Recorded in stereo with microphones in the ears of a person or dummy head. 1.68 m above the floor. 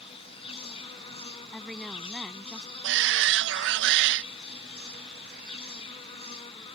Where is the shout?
70° right (ahead or behind).